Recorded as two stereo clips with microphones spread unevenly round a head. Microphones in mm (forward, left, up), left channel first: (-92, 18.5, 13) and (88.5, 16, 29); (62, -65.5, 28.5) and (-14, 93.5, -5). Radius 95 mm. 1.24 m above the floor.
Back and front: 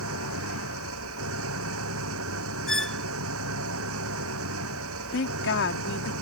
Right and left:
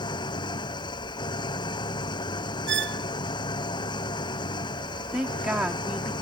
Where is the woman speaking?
160° right.